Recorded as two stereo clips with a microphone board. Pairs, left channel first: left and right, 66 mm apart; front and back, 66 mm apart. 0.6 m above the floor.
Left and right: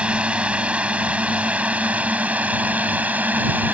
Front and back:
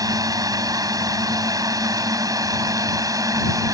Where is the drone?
160° right; by 3.7 s 155° right.